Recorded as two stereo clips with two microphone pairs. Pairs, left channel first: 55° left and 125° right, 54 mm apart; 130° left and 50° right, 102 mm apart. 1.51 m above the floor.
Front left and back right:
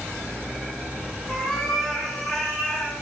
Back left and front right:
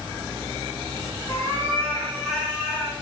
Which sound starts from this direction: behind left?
A cat meowing, at 1.3 s.